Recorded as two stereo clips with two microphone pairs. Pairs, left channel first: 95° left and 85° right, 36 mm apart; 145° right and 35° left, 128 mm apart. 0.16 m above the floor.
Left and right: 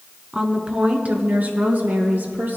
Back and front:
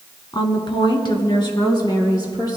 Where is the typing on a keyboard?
No typing on a keyboard in this recording.